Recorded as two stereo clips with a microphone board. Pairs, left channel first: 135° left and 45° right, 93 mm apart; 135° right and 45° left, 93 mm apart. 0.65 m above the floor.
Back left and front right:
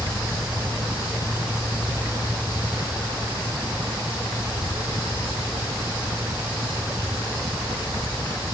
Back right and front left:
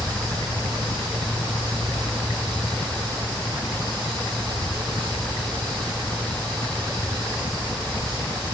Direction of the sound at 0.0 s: 105° right.